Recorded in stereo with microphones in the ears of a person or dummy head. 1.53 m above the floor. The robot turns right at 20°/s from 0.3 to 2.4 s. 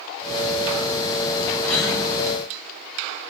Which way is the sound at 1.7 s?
15° left (ahead or behind).